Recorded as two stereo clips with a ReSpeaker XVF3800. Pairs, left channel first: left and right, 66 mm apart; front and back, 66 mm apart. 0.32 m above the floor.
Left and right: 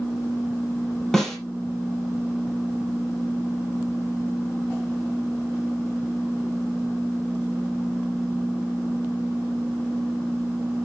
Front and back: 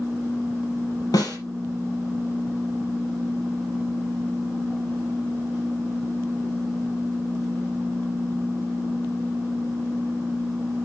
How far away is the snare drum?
About 5 m.